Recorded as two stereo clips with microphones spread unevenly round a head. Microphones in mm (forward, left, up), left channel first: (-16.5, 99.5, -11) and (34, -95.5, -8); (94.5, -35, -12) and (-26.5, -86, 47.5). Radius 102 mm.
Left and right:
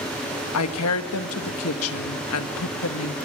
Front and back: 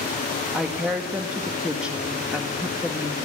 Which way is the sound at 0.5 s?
120° left.